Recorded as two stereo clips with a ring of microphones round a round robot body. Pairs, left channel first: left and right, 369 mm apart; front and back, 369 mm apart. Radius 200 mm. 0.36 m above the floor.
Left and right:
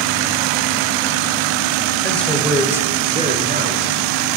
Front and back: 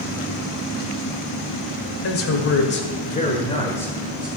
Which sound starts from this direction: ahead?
A man speaking, at 2.0 s.